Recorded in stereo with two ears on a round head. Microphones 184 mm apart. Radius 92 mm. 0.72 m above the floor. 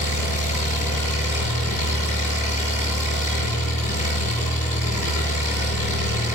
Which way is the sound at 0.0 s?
35° left (ahead or behind).